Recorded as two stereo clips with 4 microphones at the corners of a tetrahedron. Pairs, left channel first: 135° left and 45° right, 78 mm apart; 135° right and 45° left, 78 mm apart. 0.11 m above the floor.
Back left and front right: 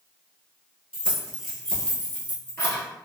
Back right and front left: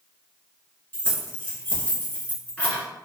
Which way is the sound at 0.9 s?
105° right.